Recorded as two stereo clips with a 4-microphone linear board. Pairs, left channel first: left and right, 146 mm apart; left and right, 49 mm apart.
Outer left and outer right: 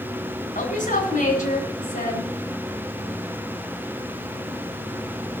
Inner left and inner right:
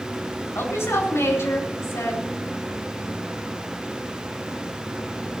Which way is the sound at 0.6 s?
70° left (ahead or behind).